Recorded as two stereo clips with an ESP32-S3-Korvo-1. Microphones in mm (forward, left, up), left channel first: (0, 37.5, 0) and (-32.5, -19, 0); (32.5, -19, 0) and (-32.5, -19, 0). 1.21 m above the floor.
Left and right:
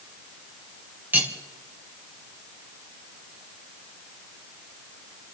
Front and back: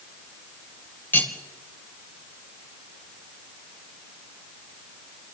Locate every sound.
1.1 s cutlery clinking: 60° right, 3 m